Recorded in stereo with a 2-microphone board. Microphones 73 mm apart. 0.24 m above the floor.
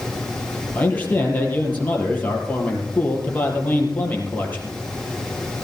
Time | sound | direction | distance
0.8 | a man speaking | 25° left (ahead or behind) | 5 m